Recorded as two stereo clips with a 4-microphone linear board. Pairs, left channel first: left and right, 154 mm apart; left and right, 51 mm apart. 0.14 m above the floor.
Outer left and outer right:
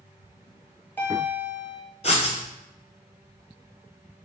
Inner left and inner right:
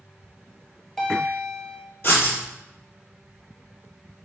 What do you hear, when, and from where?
0.4 s a bell: 10° left (ahead or behind), 0.9 m
2.0 s writing: 45° left (ahead or behind), 1.0 m